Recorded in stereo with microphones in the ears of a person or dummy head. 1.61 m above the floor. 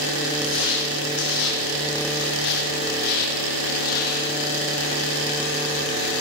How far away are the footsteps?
About 4.5 m.